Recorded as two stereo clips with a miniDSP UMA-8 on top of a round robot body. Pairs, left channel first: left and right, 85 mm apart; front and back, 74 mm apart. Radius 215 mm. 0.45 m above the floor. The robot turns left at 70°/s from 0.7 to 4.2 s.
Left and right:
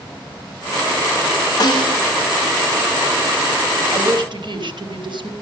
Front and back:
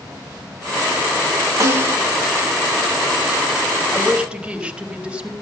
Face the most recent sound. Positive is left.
turn(degrees=-105)